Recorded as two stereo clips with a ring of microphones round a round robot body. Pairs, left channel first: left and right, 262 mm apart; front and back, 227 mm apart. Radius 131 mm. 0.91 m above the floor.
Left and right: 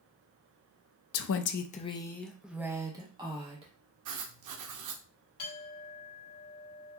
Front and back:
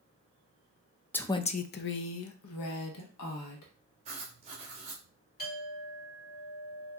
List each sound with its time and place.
1.1 s a woman speaking: 80° left, 0.5 m; by 3.7 s 20° right, 1.4 m
4.0 s writing: 115° right, 0.7 m
5.4 s a clink: 50° left, 2.5 m